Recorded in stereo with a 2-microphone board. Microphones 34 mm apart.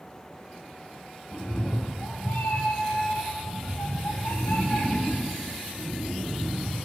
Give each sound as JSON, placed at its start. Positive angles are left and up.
{"t": 1.3, "sound": "a cat meowing", "side_deg": 65, "distance_m": 1.9}